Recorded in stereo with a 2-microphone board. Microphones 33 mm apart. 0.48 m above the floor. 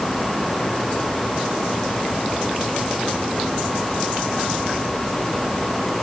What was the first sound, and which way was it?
Only background noise.